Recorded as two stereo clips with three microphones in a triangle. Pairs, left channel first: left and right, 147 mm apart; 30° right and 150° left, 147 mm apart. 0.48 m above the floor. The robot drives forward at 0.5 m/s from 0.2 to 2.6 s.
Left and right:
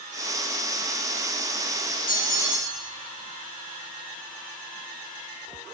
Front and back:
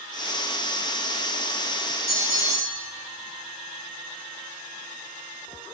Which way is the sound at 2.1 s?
80° left.